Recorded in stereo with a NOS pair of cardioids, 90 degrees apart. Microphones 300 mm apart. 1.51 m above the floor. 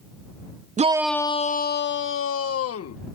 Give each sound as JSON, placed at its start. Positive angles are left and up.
{"t": 0.8, "sound": "a shout", "azimuth_deg": -25}